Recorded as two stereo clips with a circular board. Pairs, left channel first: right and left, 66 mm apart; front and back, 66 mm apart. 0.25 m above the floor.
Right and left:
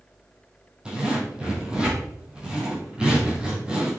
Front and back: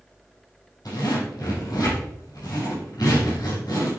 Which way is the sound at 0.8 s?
15° left.